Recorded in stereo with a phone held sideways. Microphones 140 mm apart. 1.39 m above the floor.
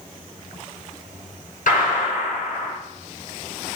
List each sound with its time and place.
1.7 s a gunshot: 80° left, 6 m